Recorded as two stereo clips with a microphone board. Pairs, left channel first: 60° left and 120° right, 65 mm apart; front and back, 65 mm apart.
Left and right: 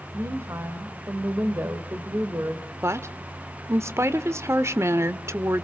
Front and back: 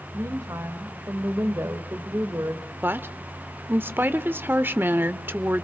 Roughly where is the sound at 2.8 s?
Behind right.